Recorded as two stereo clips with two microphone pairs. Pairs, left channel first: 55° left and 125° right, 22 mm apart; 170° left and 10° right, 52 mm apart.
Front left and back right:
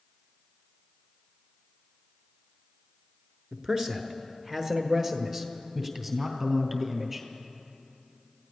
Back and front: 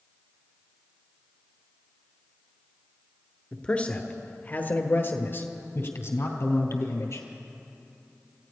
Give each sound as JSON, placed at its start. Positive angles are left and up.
{"t": 3.5, "sound": "a man speaking", "azimuth_deg": -140, "distance_m": 1.5}